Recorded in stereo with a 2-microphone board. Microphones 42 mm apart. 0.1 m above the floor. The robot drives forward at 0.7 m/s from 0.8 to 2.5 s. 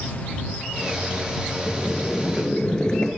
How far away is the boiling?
About 1.1 m.